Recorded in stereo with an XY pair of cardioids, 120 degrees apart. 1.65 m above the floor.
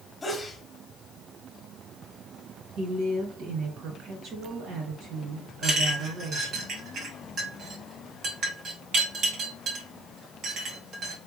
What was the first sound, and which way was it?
A sneeze, 20° left.